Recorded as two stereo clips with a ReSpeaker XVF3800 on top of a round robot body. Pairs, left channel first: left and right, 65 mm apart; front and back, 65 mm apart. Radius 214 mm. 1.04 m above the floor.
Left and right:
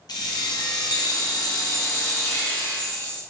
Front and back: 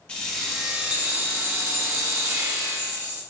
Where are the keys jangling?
75° left, 0.9 m; by 3.2 s 150° left, 2 m.